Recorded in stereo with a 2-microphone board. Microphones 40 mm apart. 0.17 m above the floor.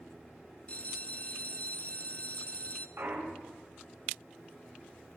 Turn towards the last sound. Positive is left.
turn(degrees=-80)